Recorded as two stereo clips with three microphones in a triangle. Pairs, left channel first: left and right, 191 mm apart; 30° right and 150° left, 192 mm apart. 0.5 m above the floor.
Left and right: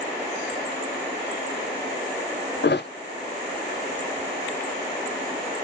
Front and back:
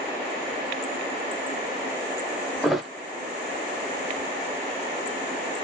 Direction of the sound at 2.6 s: 60° left.